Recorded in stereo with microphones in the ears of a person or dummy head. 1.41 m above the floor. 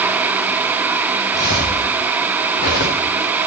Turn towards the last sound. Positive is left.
turn(degrees=50)  # may be behind; listen again after turning